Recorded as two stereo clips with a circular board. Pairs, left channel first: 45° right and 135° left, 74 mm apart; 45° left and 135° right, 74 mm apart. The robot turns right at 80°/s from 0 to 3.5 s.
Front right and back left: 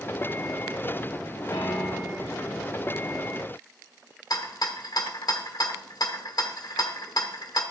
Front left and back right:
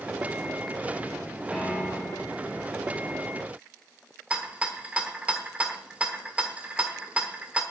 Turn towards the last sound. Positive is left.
turn(degrees=-60)